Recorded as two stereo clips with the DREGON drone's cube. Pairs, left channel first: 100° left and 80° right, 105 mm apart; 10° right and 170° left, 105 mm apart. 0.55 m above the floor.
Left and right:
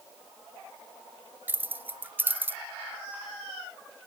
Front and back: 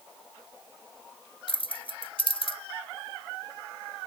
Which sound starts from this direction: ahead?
Keys jangling, at 1.5 s.